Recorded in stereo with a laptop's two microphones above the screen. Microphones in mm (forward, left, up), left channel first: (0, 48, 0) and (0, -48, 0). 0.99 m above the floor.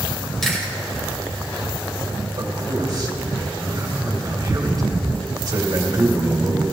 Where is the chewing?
5° left (ahead or behind), 3 m.